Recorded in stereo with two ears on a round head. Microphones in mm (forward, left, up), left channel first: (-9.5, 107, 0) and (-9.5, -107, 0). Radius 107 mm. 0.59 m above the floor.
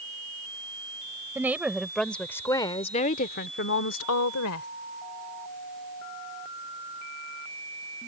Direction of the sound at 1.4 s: 10° right (ahead or behind).